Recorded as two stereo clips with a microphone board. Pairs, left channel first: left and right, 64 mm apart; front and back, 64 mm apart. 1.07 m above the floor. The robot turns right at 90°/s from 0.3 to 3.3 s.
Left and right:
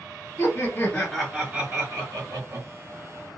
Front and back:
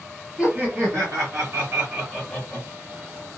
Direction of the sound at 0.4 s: 105° left.